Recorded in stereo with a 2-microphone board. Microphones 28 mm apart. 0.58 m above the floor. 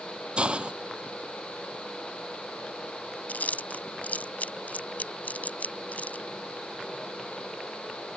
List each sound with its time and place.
0.4 s a hiss: 40° right (ahead or behind)
3.3 s chewing: 80° left